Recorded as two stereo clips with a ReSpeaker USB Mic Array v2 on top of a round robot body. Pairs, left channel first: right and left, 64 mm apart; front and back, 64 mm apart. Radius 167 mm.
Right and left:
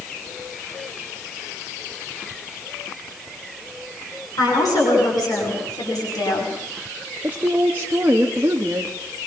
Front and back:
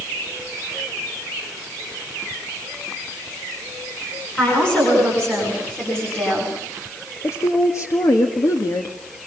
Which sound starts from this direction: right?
A woman speaking, at 4.4 s.